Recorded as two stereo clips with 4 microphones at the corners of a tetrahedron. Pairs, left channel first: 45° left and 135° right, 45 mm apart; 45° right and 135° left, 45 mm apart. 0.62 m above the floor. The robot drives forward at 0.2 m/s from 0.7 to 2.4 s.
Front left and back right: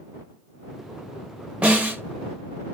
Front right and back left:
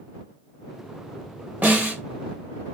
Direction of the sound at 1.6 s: 170° left.